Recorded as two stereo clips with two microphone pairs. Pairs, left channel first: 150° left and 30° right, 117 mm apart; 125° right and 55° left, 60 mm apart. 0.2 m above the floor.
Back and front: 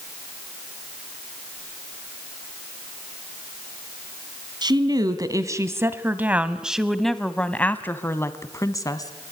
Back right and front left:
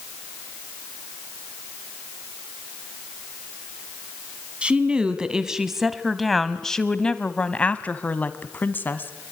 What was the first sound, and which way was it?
A woman speaking, 10° right.